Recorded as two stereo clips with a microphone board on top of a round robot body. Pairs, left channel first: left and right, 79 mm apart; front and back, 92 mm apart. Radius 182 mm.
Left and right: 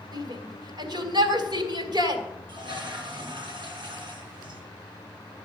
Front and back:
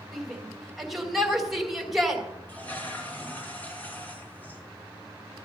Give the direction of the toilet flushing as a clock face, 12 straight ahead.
2 o'clock.